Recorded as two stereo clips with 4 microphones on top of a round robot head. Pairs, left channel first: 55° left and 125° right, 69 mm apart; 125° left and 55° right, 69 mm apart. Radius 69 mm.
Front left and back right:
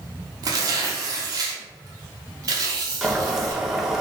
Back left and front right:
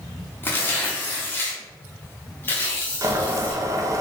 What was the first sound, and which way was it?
Tearing paper, 170° right.